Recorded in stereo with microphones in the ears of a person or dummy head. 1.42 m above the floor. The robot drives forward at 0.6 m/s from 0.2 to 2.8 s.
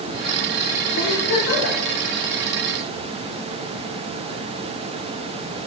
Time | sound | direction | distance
1.0 | a giggle | 75° left (ahead or behind) | 3.5 m